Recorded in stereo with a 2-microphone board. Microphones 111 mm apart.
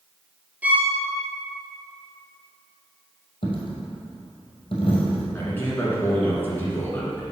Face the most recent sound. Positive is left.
turn(degrees=20)  # may be behind; listen again after turning